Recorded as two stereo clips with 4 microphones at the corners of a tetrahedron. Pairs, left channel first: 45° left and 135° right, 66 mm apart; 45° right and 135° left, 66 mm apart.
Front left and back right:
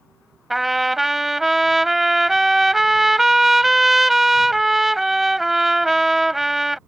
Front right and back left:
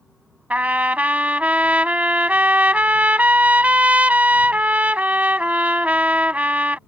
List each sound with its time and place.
0.5 s a trumpet: 140° left